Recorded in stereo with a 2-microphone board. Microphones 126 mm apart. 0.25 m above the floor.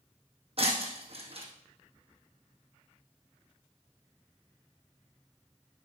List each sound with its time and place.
0.6 s breaking glass: 50° right (ahead or behind), 2 m